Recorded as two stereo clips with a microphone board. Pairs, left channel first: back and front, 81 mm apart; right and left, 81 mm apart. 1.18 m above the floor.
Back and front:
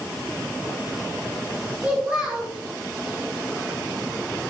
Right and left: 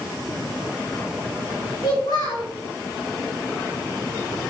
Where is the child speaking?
75° right, 4 m.